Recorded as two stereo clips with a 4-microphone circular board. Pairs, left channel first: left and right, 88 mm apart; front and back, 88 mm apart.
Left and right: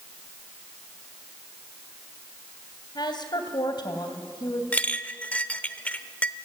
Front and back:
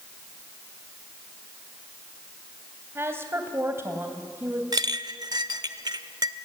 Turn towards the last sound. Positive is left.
turn(degrees=160)